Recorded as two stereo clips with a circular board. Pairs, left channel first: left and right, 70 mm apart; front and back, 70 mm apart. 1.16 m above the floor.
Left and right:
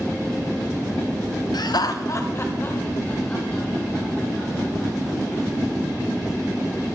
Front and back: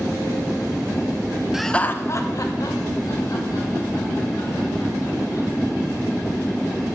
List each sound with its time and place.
1.5 s laughter: 100° left, 0.7 m; by 5.5 s 15° left, 6 m